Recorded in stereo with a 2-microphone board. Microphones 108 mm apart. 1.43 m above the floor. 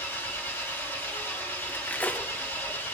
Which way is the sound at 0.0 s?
20° left (ahead or behind).